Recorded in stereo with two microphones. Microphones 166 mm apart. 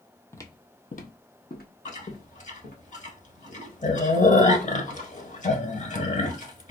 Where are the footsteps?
15° left (ahead or behind), 0.5 m; by 2.8 s 65° left (ahead or behind), 1.5 m.